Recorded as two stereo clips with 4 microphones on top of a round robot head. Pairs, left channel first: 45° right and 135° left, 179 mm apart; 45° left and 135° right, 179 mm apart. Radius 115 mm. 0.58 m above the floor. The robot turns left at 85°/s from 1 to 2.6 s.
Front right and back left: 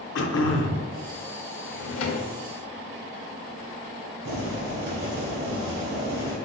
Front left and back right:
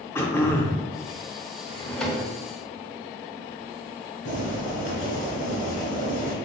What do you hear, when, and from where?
0.1 s throat clearing: 30° right, 0.6 m
1.7 s a drawer: 10° right, 0.5 m; by 2.3 s 65° right, 0.5 m
4.2 s boiling: 95° left, 1.7 m